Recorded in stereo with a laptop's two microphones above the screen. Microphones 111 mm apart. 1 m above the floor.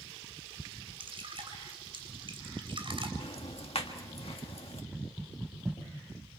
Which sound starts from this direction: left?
Ticking, at 3.2 s.